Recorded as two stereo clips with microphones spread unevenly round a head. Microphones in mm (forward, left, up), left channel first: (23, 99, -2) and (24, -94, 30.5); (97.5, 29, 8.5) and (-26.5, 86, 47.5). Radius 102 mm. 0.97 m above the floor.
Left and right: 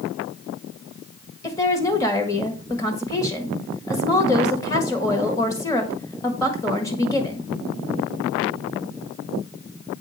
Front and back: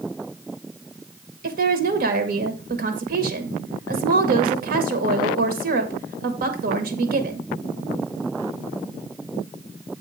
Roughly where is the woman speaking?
Behind left.